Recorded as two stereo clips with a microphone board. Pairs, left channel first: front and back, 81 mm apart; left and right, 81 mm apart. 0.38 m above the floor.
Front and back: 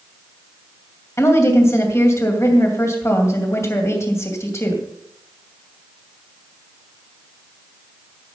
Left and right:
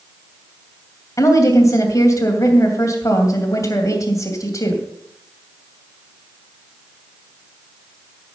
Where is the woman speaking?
50° left, 2.5 m.